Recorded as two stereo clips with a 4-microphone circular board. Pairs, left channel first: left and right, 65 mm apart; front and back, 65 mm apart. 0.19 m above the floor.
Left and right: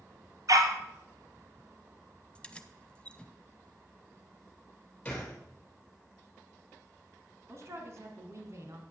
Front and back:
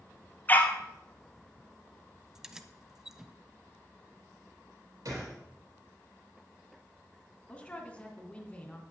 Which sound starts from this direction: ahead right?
A dog barking, at 0.5 s.